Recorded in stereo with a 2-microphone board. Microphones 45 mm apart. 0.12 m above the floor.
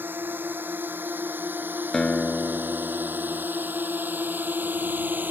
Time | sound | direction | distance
0.0 | a drone | 45° right (ahead or behind) | ?
1.9 | a guitar | 15° left (ahead or behind) | ?